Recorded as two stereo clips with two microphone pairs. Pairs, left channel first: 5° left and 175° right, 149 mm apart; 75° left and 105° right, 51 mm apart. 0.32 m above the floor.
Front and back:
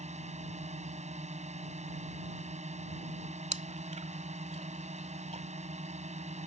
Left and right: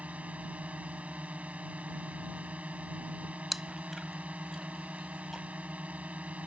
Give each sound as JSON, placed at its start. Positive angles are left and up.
{"t": 0.0, "sound": "a drone", "azimuth_deg": -155}
{"t": 3.5, "sound": "chewing", "azimuth_deg": 170}